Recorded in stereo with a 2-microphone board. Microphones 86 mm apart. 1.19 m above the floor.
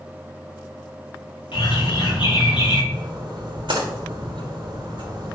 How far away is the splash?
About 3 m.